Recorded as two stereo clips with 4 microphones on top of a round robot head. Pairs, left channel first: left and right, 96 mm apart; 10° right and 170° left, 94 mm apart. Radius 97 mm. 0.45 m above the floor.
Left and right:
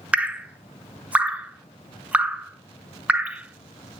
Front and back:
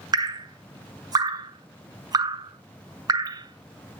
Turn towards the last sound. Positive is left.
turn(degrees=-165)